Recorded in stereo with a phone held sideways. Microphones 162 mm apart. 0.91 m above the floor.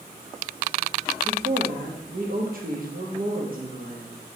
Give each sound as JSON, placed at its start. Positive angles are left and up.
{"t": 1.2, "sound": "a woman speaking", "side_deg": -60, "distance_m": 1.1}